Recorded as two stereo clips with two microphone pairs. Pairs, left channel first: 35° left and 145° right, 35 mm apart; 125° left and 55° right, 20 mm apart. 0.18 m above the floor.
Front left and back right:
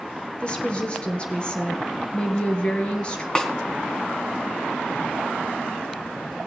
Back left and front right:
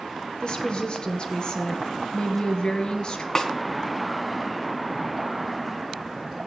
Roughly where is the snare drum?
Left.